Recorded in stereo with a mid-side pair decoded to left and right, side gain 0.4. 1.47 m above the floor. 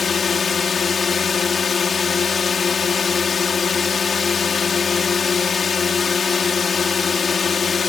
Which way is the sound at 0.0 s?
40° left.